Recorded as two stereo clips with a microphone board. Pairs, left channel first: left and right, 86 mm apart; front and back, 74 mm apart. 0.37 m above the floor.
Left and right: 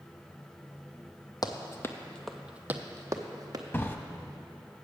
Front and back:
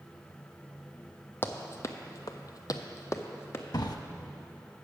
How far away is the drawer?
About 0.5 m.